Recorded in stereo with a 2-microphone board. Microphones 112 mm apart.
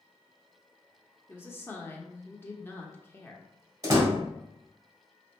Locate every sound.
1.3 s a woman speaking: 20° left (ahead or behind), 0.7 m
3.8 s a door slam: 30° right (ahead or behind), 1.7 m